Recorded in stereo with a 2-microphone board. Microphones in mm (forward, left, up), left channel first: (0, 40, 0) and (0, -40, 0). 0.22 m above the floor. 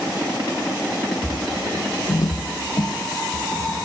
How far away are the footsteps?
About 1.6 m.